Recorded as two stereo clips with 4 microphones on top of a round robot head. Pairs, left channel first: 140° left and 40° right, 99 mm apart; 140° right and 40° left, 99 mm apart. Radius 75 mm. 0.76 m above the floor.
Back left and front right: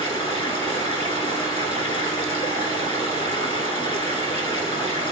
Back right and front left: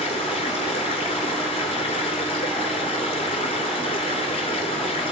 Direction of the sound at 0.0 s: Straight behind.